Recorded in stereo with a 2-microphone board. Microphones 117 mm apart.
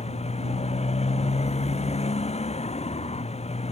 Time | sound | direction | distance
0.0 | a motorcycle | 65° left (ahead or behind) | ?